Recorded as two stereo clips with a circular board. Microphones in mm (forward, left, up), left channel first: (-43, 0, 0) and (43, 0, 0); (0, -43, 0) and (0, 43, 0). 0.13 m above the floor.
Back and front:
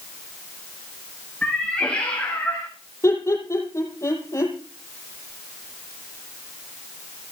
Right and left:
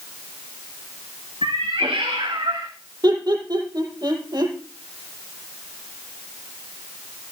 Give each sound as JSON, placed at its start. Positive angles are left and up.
{"t": 1.4, "sound": "a cat meowing", "azimuth_deg": 100, "distance_m": 5.5}
{"t": 3.0, "sound": "laughter", "azimuth_deg": 125, "distance_m": 6.0}